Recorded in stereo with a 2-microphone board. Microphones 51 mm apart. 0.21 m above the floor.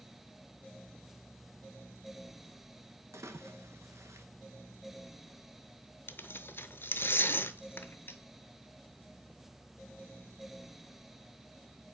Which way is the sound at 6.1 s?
50° left (ahead or behind).